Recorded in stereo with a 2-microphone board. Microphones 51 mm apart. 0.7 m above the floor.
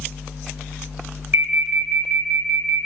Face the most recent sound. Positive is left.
turn(degrees=-50)  # may be behind; listen again after turning